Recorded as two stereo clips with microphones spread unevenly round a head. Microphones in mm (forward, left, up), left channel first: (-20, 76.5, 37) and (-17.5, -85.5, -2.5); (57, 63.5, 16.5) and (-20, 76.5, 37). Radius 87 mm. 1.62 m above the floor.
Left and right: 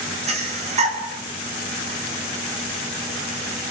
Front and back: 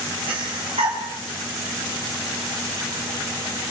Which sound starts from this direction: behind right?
Breathing, at 0.3 s.